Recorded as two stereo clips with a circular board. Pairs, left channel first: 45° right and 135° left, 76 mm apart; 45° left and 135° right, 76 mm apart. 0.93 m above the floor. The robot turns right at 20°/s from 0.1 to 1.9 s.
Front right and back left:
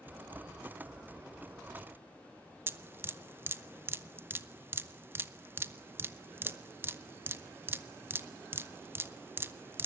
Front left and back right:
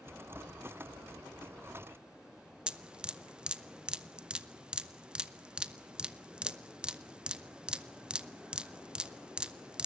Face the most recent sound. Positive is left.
turn(degrees=160)